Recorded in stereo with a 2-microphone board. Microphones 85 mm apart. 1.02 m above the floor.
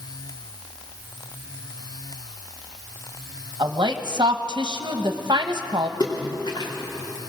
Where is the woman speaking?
60° right (ahead or behind), 1.0 m.